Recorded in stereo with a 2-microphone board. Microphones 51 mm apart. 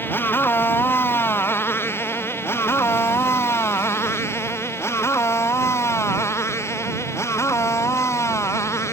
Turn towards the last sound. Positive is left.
turn(degrees=70)  # may be behind; listen again after turning